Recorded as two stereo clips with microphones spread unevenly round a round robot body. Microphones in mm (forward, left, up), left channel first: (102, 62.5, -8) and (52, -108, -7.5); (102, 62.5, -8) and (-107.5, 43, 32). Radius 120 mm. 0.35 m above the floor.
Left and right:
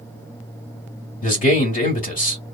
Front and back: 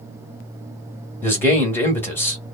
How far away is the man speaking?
About 1.6 m.